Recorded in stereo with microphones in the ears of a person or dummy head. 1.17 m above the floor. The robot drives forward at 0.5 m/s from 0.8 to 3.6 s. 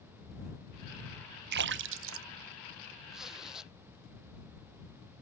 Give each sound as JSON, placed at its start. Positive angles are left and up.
{"t": 1.5, "sound": "a splash", "side_deg": -55}
{"t": 3.1, "sound": "a zipper", "side_deg": 0}